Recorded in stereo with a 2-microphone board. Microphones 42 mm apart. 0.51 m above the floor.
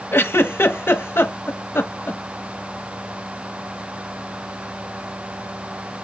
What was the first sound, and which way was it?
A giggle, 65° left (ahead or behind).